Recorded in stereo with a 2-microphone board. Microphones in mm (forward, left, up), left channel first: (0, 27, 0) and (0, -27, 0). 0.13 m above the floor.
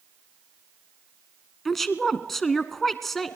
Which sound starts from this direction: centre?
A woman speaking, at 1.6 s.